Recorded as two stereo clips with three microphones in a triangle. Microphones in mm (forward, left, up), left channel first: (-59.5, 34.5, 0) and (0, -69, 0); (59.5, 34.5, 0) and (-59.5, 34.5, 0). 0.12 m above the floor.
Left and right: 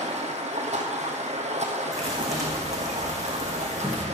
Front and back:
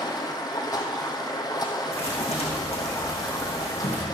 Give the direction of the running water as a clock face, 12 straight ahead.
2 o'clock.